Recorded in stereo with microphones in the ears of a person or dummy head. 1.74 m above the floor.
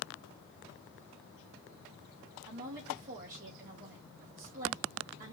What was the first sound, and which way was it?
A woman speaking, 55° right (ahead or behind).